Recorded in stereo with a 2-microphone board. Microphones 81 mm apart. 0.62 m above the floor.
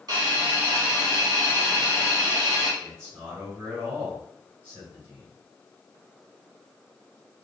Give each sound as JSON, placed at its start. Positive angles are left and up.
{"t": 0.1, "sound": "a hiss", "side_deg": -50, "distance_m": 1.9}
{"t": 2.8, "sound": "a man speaking", "side_deg": -30, "distance_m": 2.0}